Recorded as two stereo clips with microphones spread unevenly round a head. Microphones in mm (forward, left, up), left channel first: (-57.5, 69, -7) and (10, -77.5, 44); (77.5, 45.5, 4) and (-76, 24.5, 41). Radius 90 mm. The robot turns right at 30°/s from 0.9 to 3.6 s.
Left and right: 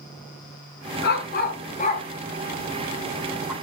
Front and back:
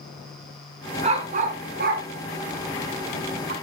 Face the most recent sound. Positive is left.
turn(degrees=-140)